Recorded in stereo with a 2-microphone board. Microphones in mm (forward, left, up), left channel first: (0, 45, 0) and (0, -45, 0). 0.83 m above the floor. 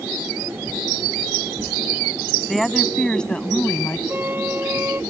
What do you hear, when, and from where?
2.5 s a woman speaking: centre (ahead or behind); by 4.0 s 20° left (ahead or behind)
4.1 s a flute: 25° right (ahead or behind)